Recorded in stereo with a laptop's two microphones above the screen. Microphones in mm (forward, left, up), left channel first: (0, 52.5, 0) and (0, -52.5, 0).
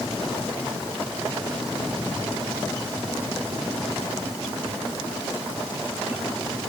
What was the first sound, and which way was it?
Only background noise.